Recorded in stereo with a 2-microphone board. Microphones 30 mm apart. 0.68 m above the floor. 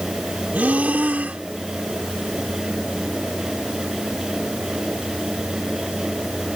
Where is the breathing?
65° right (ahead or behind).